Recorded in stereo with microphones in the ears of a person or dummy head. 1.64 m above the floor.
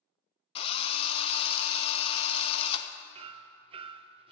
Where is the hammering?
25° right (ahead or behind), 0.5 m.